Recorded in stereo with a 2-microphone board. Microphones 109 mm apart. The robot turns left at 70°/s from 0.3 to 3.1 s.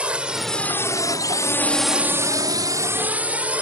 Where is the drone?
10° right (ahead or behind).